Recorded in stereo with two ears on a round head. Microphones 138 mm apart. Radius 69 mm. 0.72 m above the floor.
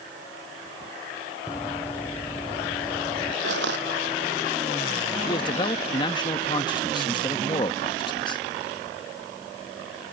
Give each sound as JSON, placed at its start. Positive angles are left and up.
{"t": 1.5, "sound": "running footsteps", "side_deg": 15}
{"t": 3.4, "sound": "crushing", "side_deg": -80}
{"t": 5.3, "sound": "a man speaking", "side_deg": 30}